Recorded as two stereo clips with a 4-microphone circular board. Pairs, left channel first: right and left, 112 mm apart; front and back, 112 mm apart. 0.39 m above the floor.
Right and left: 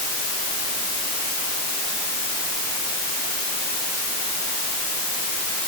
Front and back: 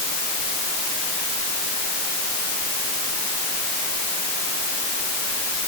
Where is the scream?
I don't hear a scream.